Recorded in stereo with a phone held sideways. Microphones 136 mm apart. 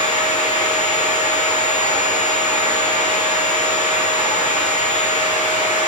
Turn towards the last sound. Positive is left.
turn(degrees=45)  # may be behind; listen again after turning